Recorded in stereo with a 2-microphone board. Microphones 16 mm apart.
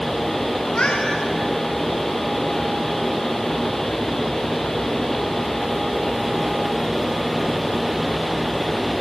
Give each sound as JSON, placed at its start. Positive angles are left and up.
{"t": 0.6, "sound": "a cat meowing", "side_deg": 80, "distance_m": 6.0}